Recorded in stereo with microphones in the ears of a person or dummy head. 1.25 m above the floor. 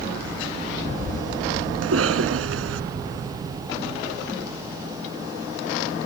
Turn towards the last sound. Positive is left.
turn(degrees=-85)